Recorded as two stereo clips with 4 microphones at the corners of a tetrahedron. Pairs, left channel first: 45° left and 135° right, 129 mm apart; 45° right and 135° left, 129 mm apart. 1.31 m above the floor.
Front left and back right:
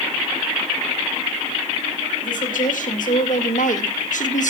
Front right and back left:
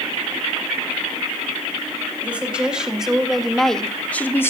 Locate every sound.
2.2 s a woman speaking: 55° left, 3 m; by 4.5 s 25° left, 1.3 m